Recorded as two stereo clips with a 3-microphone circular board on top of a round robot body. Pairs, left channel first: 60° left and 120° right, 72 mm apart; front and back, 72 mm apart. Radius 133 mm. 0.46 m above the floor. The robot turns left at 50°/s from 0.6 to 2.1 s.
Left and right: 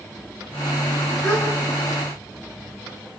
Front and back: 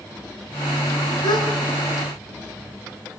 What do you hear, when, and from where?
1.2 s a gasp: 5° left, 8 m; by 1.5 s 5° right, 8 m